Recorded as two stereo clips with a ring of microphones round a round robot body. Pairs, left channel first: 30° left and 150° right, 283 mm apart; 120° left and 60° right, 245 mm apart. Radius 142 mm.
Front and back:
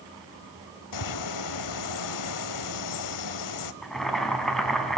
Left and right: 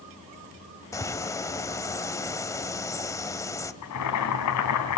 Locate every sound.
0.9 s a bird: 45° left, 1.8 m
3.8 s boiling: 120° left, 4 m